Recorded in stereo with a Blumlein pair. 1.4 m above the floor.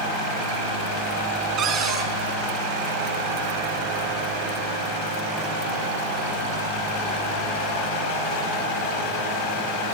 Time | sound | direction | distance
1.6 | a cupboard door | 30° right | 5.5 m